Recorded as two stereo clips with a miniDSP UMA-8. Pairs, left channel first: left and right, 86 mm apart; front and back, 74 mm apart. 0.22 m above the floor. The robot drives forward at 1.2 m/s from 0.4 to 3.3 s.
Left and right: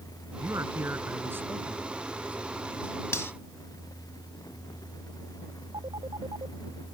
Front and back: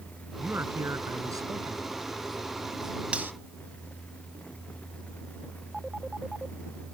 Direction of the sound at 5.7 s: 100° right.